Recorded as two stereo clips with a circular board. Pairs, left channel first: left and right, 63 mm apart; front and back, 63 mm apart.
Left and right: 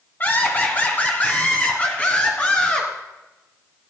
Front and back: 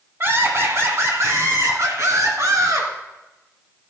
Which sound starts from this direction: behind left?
Laughter, at 0.2 s.